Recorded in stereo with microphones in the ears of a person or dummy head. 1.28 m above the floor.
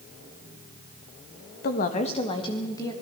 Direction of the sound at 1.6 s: 40° left (ahead or behind).